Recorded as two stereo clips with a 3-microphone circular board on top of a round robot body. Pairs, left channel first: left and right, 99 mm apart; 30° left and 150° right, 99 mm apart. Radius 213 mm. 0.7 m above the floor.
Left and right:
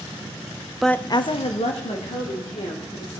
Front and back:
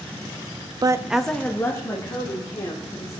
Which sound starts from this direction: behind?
A woman speaking, at 0.8 s.